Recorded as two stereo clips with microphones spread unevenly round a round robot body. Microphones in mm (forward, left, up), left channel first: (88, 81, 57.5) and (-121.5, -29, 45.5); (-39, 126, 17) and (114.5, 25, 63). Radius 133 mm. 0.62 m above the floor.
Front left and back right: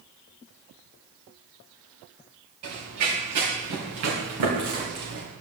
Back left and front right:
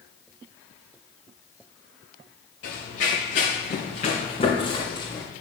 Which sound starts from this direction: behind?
Running footsteps, at 2.6 s.